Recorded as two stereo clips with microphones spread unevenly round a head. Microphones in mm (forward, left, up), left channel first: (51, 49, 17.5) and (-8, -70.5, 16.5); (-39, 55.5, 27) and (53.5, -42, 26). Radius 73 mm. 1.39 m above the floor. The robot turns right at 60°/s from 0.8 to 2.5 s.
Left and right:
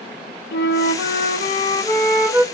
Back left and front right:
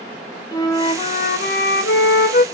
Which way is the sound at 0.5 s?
70° left.